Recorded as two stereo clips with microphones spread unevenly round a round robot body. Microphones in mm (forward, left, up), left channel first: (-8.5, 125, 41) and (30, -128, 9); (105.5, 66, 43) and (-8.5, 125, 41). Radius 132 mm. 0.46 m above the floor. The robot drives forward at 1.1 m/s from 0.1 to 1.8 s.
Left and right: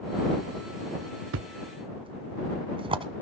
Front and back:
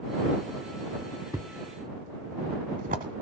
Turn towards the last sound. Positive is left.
turn(degrees=-155)